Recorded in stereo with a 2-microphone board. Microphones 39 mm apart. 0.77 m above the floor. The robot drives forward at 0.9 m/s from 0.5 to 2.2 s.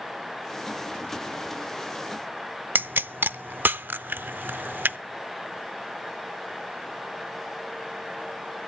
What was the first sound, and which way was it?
A pop, 55° right (ahead or behind).